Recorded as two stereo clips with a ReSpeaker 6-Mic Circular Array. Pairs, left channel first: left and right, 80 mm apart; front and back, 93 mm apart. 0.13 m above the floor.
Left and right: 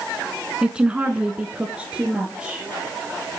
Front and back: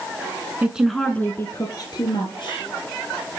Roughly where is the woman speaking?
Behind right.